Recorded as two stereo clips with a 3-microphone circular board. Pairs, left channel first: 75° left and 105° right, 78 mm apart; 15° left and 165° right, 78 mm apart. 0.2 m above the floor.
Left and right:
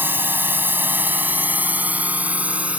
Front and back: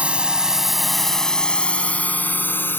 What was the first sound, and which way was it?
A drone, 110° right.